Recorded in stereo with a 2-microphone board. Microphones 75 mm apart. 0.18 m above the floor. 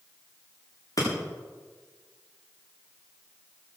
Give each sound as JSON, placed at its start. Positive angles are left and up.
{"t": 1.0, "sound": "breaking glass", "side_deg": 55, "distance_m": 9.0}